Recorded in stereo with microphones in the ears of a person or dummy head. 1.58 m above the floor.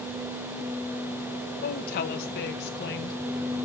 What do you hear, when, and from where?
1.6 s a woman speaking: 50° left (ahead or behind), 1.5 m; by 3.2 s 60° left (ahead or behind), 2.5 m